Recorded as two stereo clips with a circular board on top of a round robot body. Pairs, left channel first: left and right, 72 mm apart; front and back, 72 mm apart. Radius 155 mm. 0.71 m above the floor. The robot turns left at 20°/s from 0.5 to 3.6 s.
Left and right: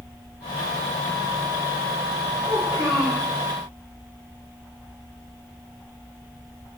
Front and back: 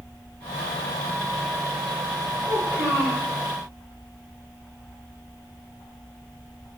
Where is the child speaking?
110° right, 1.9 m; by 3.2 s 125° right, 1.9 m.